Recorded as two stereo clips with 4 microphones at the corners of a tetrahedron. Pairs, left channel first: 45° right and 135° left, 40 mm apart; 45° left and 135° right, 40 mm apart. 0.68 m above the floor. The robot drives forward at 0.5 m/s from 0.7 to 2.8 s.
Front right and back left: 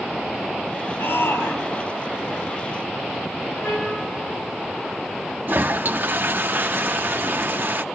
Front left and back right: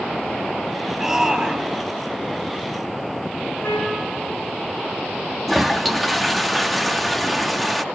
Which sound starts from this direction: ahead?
A trumpet, at 3.6 s.